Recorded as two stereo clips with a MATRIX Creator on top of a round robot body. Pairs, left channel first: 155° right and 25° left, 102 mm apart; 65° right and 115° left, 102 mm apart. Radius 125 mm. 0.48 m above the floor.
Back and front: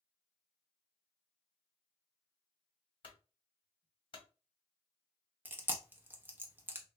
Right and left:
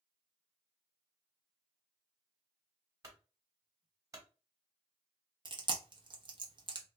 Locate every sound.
3.0 s a clunk: 170° left, 1.2 m
5.5 s chewing: 90° left, 0.9 m